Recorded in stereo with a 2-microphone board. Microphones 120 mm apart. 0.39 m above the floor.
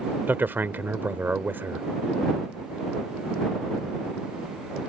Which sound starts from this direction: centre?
A man speaking, at 0.3 s.